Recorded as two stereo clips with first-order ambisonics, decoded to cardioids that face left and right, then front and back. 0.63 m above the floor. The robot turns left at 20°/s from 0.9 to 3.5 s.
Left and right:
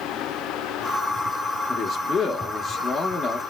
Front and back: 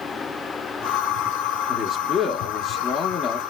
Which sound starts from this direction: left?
A man speaking, at 1.7 s.